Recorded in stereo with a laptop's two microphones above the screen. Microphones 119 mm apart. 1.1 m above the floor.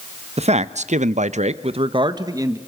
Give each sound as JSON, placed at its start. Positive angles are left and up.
{"t": 0.4, "sound": "a man speaking", "side_deg": -60, "distance_m": 1.0}